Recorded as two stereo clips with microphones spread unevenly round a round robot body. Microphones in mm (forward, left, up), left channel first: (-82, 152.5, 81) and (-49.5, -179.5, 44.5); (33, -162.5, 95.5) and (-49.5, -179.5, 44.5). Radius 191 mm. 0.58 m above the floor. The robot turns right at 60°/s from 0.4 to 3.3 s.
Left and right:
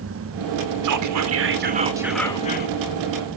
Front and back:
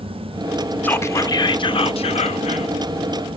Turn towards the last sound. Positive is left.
turn(degrees=70)